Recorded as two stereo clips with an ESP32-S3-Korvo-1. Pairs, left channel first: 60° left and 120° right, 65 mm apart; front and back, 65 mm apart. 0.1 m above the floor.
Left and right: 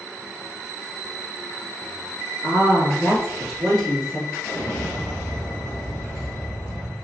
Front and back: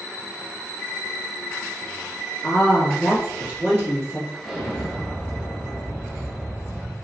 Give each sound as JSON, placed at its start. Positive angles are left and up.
{"t": 2.4, "sound": "a woman speaking", "azimuth_deg": 75, "distance_m": 1.1}
{"t": 4.4, "sound": "an explosion", "azimuth_deg": 100, "distance_m": 1.6}